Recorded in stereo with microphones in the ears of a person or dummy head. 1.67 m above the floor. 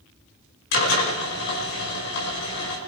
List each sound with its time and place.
0.7 s a drill: 75° left (ahead or behind), 5.5 m